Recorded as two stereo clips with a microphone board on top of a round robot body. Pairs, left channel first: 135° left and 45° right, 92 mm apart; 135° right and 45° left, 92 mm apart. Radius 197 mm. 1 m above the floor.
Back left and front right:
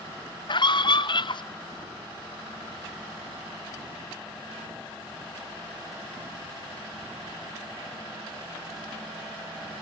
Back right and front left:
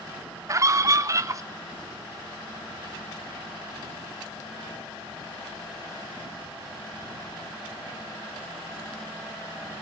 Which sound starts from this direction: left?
A scream, at 0.5 s.